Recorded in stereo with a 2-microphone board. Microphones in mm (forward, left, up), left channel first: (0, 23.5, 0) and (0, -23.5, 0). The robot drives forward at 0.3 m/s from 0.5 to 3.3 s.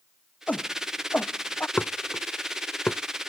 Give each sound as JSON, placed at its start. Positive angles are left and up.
{"t": 0.5, "sound": "a shout", "side_deg": 30}
{"t": 1.8, "sound": "dishes clattering", "side_deg": 45}